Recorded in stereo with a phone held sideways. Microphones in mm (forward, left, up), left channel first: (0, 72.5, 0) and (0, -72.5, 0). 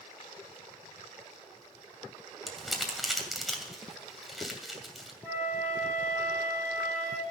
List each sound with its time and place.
2.5 s crumpling: centre (ahead or behind), 2.5 m
5.2 s a flute: 10° left (ahead or behind), 9.5 m